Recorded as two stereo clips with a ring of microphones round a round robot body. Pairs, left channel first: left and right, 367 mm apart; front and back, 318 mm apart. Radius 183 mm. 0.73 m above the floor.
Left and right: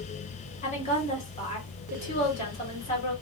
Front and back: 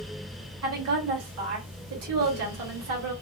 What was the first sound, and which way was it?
A woman speaking, 160° left.